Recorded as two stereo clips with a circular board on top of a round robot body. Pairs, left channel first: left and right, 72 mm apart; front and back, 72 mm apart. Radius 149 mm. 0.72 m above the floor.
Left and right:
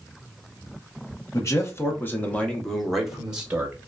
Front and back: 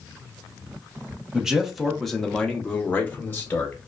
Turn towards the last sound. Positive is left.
turn(degrees=-35)